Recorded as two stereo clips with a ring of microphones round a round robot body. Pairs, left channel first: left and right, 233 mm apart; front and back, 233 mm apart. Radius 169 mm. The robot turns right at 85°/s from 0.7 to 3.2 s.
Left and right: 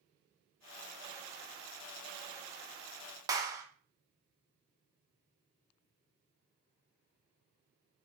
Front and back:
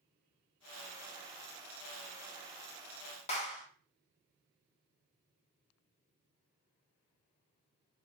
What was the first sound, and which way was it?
A clap, 30° right.